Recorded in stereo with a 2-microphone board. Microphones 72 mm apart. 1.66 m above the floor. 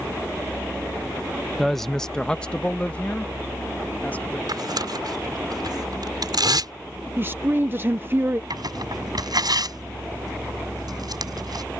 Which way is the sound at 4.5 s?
70° right (ahead or behind).